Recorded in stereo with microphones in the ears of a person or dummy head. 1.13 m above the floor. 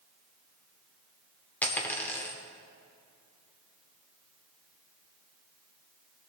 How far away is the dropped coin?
About 0.9 m.